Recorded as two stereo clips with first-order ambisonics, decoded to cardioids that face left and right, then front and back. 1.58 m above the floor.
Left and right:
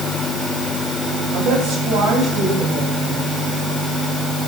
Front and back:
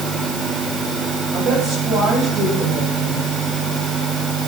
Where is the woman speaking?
120° right, 8.5 m.